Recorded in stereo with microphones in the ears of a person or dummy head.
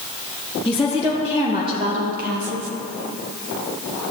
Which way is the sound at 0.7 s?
5° left (ahead or behind).